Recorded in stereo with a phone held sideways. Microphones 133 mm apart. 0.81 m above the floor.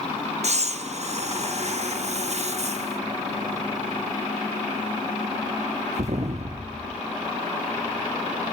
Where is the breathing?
55° right (ahead or behind), 0.6 m.